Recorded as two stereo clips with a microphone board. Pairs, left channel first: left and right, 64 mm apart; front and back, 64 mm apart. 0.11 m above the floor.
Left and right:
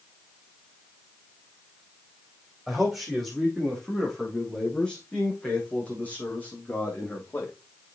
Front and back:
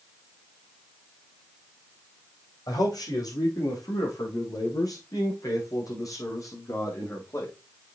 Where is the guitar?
No guitar in this recording.